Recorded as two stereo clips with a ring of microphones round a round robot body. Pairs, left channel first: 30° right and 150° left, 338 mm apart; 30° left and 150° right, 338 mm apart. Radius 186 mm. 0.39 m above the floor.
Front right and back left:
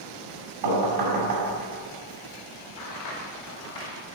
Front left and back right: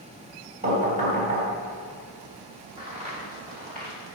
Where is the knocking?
140° left, 2.5 m.